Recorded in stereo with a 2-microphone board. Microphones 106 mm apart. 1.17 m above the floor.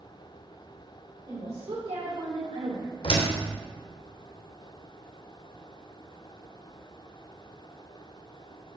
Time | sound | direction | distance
1.3 | a woman speaking | 70° right (ahead or behind) | 3 m
3.0 | a door slam | 60° left (ahead or behind) | 3 m